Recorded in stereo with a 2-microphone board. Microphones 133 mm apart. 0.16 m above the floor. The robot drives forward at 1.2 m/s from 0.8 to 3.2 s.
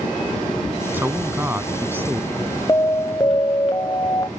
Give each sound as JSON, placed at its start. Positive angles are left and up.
{"t": 0.9, "sound": "a man speaking", "side_deg": -15}
{"t": 2.7, "sound": "an alarm", "side_deg": 20}